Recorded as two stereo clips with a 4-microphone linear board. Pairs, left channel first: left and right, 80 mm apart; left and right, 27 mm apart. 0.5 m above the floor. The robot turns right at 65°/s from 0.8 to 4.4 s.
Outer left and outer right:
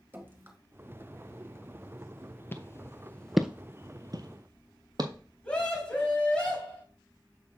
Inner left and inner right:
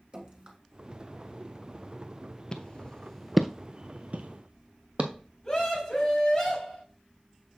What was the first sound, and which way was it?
Dripping, 25° right (ahead or behind).